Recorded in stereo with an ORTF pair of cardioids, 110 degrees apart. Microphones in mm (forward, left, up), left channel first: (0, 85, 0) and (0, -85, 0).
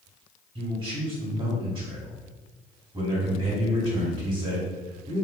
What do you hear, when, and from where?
0.6 s a man speaking: 30° right, 1.8 m